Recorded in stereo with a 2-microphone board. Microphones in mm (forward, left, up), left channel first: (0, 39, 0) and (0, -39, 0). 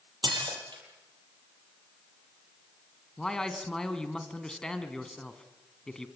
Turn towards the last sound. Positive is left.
turn(degrees=10)  # may be behind; listen again after turning